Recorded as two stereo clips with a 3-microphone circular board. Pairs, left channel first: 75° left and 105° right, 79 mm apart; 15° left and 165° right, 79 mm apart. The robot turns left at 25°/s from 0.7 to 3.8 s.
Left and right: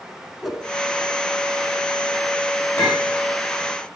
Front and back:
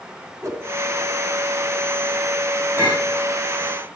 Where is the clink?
135° left, 9.5 m; by 3.1 s 125° left, 9.5 m.